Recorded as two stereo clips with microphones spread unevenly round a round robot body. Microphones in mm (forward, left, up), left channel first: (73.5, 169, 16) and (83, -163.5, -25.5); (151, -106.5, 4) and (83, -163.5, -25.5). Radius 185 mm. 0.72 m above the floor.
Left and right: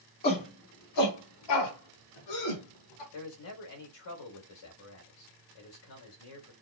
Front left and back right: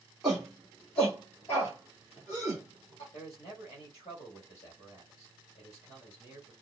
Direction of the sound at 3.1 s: 100° left.